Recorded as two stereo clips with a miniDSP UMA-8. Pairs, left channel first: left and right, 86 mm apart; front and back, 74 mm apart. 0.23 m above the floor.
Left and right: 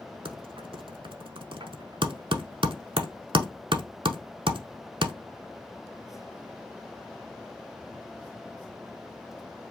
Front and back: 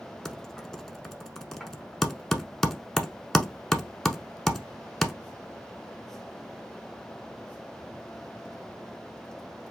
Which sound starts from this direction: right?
Typing on a keyboard, at 0.2 s.